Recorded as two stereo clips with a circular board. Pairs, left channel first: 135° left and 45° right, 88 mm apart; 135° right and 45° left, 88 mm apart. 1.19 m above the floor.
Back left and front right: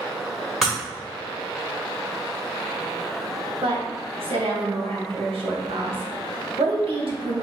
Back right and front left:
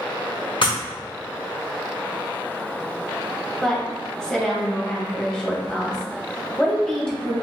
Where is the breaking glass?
130° right, 1.8 m.